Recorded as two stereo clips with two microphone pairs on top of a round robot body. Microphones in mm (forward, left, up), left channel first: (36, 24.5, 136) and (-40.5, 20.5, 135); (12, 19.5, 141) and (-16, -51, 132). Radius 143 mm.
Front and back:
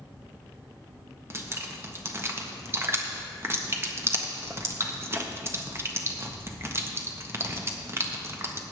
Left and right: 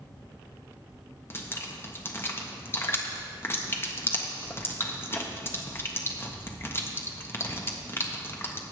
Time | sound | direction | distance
1.3 | dripping | 130° left | 1.4 m